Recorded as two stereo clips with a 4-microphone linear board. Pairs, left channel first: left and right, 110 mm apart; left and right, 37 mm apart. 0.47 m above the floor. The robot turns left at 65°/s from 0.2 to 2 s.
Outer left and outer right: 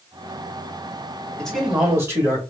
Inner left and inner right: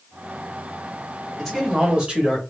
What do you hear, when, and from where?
1.4 s a man speaking: 15° left, 2 m; by 2.4 s 30° right, 2 m